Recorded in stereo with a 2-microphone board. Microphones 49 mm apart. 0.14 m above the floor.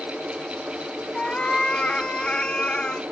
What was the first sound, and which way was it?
A cat meowing, 20° left (ahead or behind).